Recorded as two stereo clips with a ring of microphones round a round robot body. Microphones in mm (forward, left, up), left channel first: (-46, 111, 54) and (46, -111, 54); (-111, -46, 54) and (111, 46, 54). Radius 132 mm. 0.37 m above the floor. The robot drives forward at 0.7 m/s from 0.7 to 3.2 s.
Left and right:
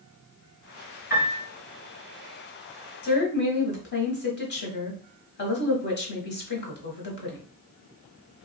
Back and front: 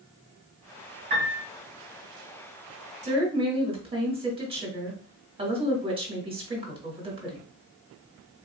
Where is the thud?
No thud in this recording.